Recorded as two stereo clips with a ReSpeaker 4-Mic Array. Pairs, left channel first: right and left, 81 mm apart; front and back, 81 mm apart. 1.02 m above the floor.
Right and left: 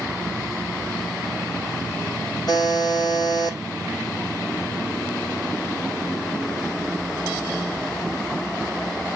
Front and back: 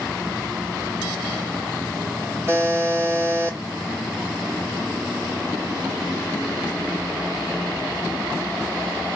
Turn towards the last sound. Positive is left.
turn(degrees=-120)